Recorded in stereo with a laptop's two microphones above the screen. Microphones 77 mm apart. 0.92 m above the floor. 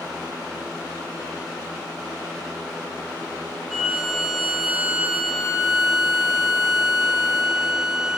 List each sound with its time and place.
3.7 s a violin: centre (ahead or behind), 0.7 m